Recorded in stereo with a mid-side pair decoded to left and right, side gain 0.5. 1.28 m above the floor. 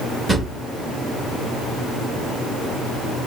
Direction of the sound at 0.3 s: 5° right.